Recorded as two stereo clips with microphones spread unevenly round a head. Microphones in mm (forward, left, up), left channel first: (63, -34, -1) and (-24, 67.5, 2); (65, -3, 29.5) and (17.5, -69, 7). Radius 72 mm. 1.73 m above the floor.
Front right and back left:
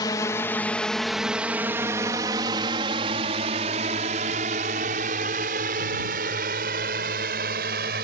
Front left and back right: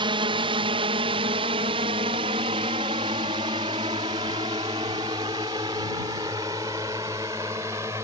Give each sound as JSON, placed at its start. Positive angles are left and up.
{"t": 0.0, "sound": "a drone", "azimuth_deg": -115}